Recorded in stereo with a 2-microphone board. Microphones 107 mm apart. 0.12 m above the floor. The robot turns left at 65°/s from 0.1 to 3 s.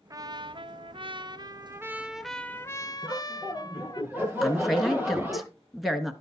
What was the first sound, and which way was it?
A trumpet, 40° right.